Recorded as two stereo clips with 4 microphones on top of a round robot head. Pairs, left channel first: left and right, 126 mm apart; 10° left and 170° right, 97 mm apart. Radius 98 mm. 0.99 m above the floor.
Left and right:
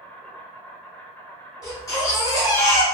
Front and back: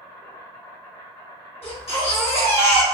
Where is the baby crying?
30° left, 1.2 m.